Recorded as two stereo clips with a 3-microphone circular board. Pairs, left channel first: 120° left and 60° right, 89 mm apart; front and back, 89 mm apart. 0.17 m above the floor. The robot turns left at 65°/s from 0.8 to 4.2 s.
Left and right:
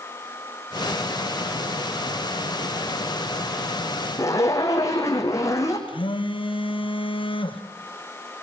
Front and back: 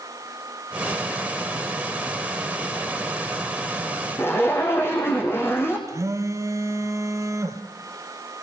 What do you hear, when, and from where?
4.2 s a zipper: 65° left, 4.5 m
5.9 s a phone buzzing: 125° left, 2 m